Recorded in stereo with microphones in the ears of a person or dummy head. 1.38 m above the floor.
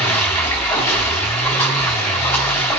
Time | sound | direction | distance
0.0 | running water | 15° left (ahead or behind) | 3.5 m